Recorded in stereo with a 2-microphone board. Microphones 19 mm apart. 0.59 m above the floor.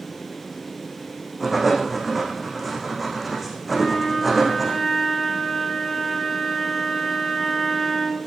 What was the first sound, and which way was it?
Writing, 5° right (ahead or behind).